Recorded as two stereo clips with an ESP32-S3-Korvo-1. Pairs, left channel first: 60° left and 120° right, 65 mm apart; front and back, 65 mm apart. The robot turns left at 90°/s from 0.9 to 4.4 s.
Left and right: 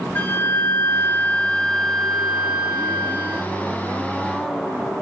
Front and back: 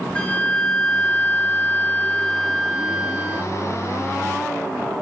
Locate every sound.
0.1 s a flute: 50° left, 0.5 m; by 3.4 s 175° right, 0.5 m